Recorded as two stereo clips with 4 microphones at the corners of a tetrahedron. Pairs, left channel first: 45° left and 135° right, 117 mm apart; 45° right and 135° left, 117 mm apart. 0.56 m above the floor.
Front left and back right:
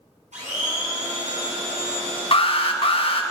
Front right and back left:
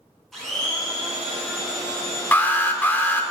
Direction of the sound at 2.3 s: 25° left.